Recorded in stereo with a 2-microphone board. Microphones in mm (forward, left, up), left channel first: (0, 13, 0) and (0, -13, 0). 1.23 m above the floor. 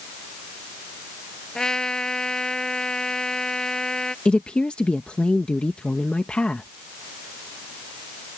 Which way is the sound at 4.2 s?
40° left (ahead or behind).